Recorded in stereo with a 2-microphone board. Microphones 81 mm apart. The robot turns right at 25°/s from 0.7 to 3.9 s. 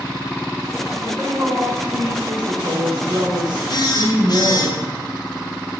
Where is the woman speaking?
155° right, 3.5 m; by 4.7 s 85° right, 3.5 m.